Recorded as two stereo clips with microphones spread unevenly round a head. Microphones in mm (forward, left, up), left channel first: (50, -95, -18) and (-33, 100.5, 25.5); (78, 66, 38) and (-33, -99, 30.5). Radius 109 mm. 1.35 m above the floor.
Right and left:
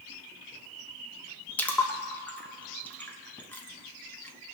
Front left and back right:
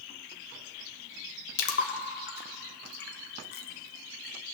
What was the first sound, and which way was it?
A splash, 20° left.